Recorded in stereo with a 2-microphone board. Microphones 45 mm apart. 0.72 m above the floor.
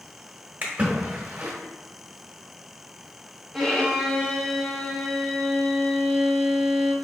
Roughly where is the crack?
No crack in this recording.